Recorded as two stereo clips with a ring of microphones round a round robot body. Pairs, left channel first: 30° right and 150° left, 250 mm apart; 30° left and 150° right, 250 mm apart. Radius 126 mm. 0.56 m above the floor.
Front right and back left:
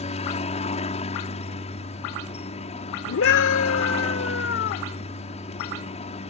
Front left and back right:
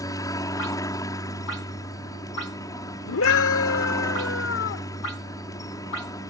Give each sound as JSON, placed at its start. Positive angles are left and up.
{"t": 0.0, "sound": "a helicopter", "azimuth_deg": -25}
{"t": 3.1, "sound": "a scream", "azimuth_deg": 0}